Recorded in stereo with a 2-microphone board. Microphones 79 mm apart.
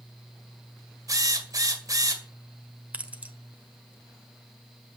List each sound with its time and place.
1.1 s a drill: 45° right (ahead or behind), 1.8 m
2.9 s keys jangling: 20° right (ahead or behind), 1.2 m